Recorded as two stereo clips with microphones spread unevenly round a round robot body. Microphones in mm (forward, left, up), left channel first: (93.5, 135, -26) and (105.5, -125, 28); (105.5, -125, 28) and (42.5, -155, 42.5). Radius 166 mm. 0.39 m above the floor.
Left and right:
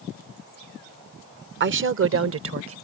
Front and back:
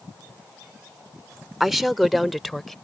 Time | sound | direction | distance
1.6 | a woman speaking | 55° right | ?